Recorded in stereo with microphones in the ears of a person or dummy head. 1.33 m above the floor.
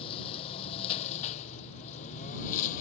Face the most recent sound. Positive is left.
turn(degrees=40)  # may be behind; listen again after turning